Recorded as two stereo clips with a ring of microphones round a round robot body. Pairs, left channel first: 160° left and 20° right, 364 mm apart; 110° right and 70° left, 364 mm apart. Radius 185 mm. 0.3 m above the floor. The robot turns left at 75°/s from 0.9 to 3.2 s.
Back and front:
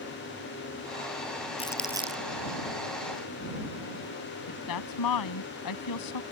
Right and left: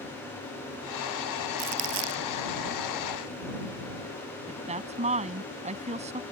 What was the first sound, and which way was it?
Crumpling, 85° left.